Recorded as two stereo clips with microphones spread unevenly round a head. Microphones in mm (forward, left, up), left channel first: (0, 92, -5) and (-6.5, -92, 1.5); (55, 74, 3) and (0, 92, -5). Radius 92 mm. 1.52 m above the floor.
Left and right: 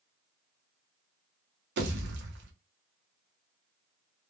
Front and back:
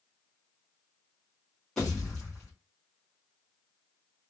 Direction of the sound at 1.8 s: 100° right.